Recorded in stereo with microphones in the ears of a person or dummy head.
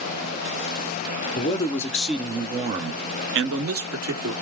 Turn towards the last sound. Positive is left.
turn(degrees=-70)  # may be behind; listen again after turning